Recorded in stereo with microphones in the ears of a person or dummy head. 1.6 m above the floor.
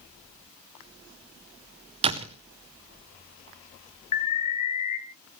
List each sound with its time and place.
2.0 s a door slam: 30° right (ahead or behind), 0.7 m
4.1 s an alarm: 35° left (ahead or behind), 2.5 m